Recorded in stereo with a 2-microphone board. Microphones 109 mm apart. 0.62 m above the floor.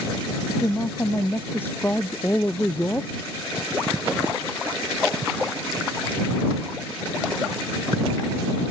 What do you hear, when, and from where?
0.5 s a woman speaking: 20° left (ahead or behind)